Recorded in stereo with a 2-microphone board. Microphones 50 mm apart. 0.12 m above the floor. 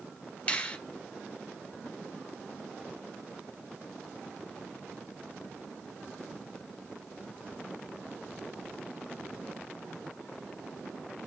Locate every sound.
0.5 s a finger snap: 25° left (ahead or behind), 1.5 m